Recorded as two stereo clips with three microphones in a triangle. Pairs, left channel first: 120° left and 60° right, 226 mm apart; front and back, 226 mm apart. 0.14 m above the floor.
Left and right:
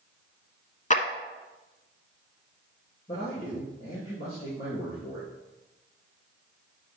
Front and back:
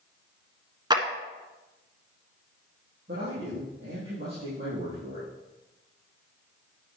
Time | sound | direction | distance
0.9 | a clap | 125° left | 1.2 m
3.1 | a man speaking | 160° left | 4.5 m